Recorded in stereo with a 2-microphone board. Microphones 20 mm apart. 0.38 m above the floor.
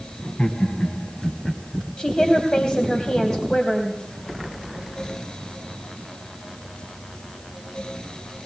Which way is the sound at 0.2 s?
50° left (ahead or behind).